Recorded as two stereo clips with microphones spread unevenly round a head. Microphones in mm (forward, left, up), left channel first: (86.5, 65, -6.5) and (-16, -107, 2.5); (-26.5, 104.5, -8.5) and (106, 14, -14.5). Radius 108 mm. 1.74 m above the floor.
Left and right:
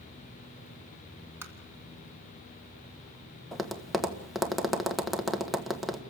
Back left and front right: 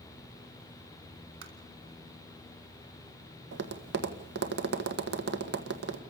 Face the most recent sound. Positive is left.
turn(degrees=-30)